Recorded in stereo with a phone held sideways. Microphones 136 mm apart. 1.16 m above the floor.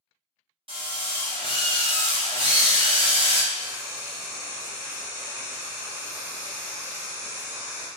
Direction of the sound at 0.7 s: 45° right (ahead or behind).